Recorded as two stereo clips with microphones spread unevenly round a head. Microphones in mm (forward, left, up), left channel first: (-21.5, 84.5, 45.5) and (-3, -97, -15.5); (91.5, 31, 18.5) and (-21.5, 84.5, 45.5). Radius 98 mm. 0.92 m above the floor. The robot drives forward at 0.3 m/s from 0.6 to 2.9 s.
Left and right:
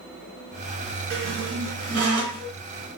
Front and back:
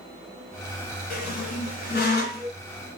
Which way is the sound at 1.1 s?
35° right.